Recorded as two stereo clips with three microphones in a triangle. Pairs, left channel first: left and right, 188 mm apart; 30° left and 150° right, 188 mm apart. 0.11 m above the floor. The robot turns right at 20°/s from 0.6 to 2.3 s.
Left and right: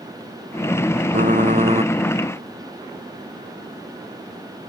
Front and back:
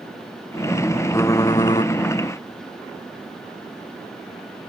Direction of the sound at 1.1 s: 45° right.